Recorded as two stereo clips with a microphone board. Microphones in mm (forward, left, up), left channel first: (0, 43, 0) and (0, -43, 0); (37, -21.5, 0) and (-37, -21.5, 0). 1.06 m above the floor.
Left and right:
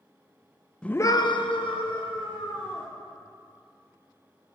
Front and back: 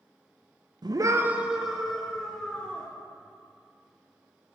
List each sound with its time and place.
0.8 s a scream: 170° left, 0.5 m; by 2.9 s 80° left, 2 m